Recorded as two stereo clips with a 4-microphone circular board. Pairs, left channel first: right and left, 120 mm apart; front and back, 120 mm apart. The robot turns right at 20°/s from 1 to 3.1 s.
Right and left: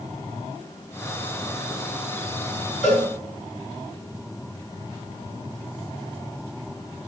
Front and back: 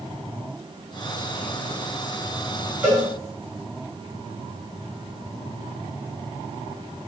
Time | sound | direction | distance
2.8 | a cowbell | 105° right | 5 m